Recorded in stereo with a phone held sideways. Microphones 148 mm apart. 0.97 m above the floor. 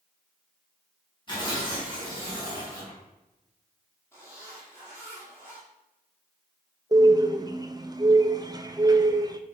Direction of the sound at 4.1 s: 15° left (ahead or behind).